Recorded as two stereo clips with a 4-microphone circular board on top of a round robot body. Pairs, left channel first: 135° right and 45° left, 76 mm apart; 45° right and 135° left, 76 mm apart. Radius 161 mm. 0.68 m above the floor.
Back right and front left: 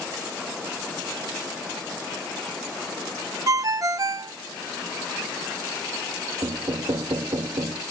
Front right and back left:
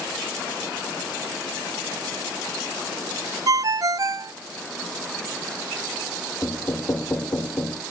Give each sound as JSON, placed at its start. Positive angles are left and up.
{"t": 3.5, "sound": "a ringtone", "azimuth_deg": 90, "distance_m": 0.5}
{"t": 6.4, "sound": "knocking", "azimuth_deg": 15, "distance_m": 1.2}